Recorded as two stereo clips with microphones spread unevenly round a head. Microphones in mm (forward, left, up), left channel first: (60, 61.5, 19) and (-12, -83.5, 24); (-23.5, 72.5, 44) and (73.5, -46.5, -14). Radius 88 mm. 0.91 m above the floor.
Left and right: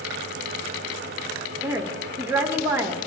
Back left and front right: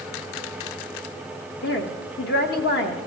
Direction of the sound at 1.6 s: 170° left.